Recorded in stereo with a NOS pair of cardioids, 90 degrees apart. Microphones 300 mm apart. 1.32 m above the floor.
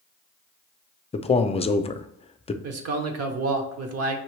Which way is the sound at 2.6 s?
55° right.